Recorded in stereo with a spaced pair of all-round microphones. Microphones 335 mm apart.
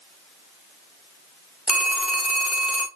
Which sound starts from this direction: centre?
A phone ringing, at 1.7 s.